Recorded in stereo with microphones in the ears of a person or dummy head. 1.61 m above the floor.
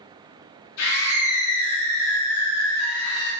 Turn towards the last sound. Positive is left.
turn(degrees=70)  # may be behind; listen again after turning